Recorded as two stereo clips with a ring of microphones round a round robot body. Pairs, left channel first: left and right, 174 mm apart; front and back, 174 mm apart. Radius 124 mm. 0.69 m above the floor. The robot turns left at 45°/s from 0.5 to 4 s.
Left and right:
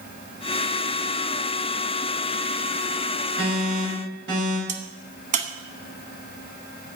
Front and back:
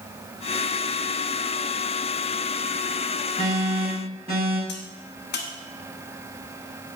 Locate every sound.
3.4 s an alarm: 85° right, 5 m; by 4.6 s 115° right, 5 m
4.7 s a crack: 45° right, 1.2 m